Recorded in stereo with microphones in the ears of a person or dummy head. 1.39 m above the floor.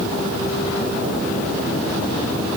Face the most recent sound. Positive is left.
No sound to turn to.